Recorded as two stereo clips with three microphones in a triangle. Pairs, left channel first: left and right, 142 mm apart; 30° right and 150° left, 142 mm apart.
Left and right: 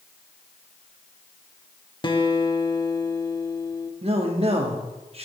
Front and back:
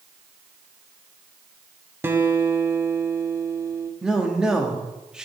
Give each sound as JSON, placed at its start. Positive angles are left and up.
{"t": 2.0, "sound": "a guitar", "azimuth_deg": 95, "distance_m": 0.6}
{"t": 4.0, "sound": "a man speaking", "azimuth_deg": -125, "distance_m": 1.1}